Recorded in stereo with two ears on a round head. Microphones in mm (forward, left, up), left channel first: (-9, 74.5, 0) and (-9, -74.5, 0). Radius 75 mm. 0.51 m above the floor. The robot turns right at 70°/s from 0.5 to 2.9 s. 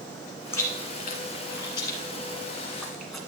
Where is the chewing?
15° left (ahead or behind), 1.8 m; by 3.2 s centre (ahead or behind), 1.8 m.